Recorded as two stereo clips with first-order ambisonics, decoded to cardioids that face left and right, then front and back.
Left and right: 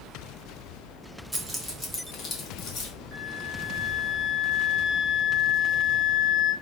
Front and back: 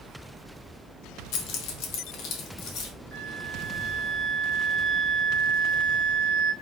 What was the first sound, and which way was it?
Keys jangling, 10° right.